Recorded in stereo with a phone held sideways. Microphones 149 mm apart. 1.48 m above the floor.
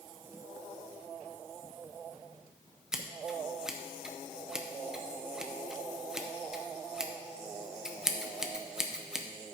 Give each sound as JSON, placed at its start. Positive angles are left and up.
{"t": 2.9, "sound": "scissors", "side_deg": -5, "distance_m": 0.7}